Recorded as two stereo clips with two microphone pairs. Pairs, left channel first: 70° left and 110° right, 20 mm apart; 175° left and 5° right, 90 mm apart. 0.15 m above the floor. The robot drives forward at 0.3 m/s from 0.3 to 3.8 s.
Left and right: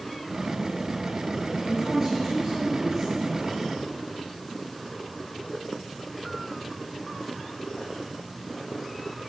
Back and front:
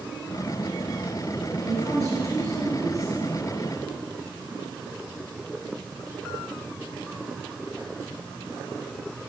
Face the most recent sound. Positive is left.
turn(degrees=-55)